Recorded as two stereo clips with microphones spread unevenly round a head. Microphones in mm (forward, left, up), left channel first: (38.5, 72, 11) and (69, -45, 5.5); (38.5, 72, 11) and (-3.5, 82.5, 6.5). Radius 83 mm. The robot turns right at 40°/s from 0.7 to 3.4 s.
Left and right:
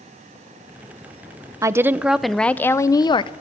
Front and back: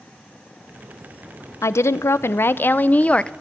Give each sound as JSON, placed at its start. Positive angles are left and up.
{"t": 1.6, "sound": "a woman speaking", "azimuth_deg": -10, "distance_m": 0.6}